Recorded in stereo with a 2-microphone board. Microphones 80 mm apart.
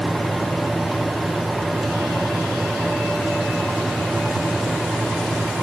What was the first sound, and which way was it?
Only background noise.